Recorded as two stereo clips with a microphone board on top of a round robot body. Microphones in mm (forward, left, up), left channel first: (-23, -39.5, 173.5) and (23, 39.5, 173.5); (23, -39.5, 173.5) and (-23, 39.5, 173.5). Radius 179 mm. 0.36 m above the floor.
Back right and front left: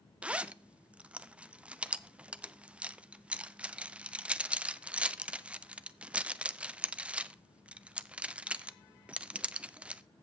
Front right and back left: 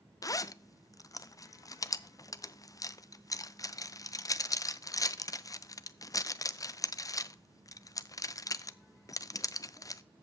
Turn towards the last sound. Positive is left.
turn(degrees=-15)